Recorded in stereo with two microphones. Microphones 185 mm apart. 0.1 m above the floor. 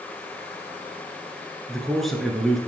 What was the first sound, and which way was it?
A man speaking, centre (ahead or behind).